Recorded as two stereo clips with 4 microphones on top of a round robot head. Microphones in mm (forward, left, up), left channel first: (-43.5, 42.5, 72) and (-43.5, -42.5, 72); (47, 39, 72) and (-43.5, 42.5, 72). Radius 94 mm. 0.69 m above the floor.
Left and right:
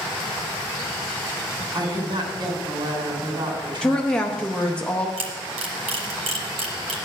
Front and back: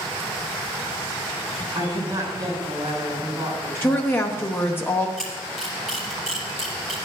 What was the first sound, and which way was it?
A woman speaking, 125° right.